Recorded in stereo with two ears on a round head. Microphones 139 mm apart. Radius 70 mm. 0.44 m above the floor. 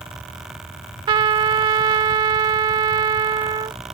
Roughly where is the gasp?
No gasp in this recording.